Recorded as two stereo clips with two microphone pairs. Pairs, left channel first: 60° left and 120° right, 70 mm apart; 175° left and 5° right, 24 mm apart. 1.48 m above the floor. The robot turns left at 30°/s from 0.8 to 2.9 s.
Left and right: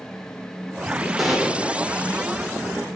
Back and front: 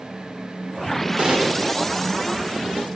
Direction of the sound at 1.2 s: 30° right.